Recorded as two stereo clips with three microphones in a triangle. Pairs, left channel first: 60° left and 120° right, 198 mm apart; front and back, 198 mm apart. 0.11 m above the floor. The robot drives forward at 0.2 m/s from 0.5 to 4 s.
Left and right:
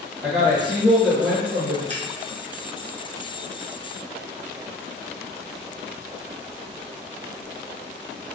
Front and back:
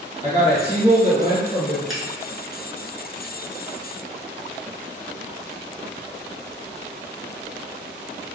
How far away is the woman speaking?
About 1.3 m.